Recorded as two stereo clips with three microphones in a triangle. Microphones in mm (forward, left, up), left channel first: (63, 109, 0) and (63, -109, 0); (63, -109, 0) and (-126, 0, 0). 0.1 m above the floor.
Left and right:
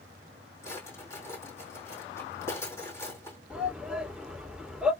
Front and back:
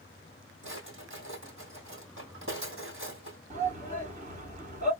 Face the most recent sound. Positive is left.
turn(degrees=-175)